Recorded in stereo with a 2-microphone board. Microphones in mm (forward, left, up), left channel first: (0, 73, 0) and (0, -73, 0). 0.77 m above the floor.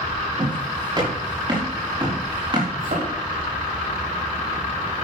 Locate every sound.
0.4 s footsteps: 30° right (ahead or behind), 6.5 m; by 2.7 s 35° right (ahead or behind), 5 m
2.8 s a thud: 70° right (ahead or behind), 6 m